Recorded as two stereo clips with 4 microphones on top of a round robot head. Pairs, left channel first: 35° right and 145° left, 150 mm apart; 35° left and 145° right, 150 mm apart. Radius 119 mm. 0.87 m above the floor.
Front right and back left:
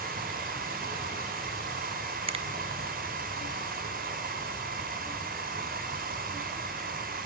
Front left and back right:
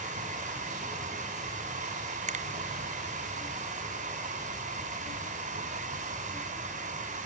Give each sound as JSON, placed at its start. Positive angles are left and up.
{"t": 0.0, "sound": "running water", "azimuth_deg": 175, "distance_m": 6.0}
{"t": 2.3, "sound": "a finger snap", "azimuth_deg": -170, "distance_m": 1.2}